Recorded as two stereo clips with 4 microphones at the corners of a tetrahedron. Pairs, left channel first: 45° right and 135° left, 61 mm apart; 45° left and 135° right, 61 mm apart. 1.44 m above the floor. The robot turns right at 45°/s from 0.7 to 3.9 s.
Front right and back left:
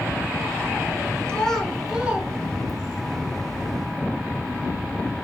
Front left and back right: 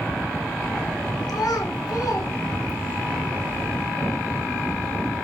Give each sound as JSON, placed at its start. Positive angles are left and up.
{"t": 1.3, "sound": "a child speaking", "azimuth_deg": 25, "distance_m": 2.5}